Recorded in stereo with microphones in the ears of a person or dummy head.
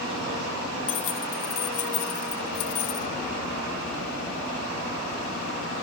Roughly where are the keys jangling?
Left.